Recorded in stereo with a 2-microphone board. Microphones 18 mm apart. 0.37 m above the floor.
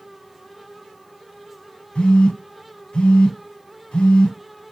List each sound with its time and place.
1.9 s a phone buzzing: 80° left, 0.9 m